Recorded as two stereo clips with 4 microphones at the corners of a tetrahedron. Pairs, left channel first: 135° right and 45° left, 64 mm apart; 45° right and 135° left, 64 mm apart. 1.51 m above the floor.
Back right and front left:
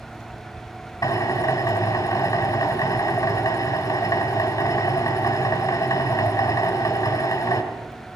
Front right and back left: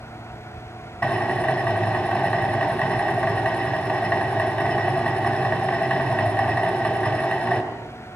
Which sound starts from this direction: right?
A drill, at 1.0 s.